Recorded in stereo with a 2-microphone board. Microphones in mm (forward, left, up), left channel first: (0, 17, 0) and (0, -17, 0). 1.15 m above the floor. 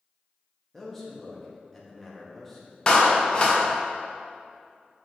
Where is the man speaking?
5° left (ahead or behind), 0.7 m.